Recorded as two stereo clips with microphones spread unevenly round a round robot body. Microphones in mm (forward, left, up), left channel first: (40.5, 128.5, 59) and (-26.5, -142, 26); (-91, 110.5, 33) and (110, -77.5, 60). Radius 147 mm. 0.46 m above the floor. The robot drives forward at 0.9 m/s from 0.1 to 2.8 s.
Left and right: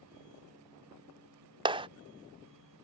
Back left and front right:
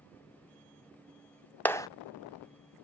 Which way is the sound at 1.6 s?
155° right.